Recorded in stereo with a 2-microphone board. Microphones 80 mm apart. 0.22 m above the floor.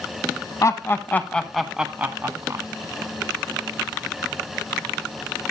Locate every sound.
0.6 s laughter: 40° left (ahead or behind), 1.4 m; by 2.6 s 40° right (ahead or behind), 1.4 m